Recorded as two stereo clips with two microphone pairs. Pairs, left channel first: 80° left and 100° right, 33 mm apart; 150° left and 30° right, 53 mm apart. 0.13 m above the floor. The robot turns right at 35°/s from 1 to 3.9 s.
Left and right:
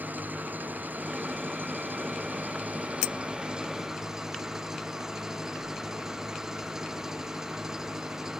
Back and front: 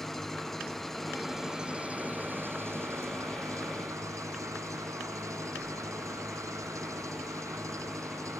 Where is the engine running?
125° right; by 8.4 s 25° right.